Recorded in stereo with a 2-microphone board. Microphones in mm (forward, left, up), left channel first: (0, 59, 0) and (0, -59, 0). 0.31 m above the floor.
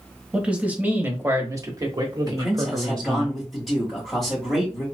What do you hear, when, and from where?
0.3 s a man speaking: 10° right (ahead or behind), 1.3 m; by 3.3 s 40° right (ahead or behind), 1.3 m
2.3 s a man speaking: centre (ahead or behind), 1.7 m